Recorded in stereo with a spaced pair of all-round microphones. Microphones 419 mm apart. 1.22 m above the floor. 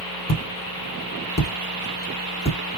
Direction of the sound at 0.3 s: 40° left (ahead or behind).